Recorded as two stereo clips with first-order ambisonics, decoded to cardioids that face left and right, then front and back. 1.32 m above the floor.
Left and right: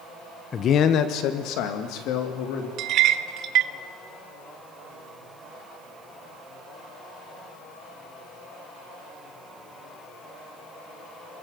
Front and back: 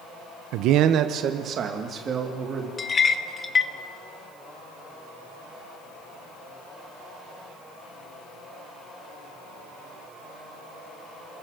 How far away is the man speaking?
About 0.9 m.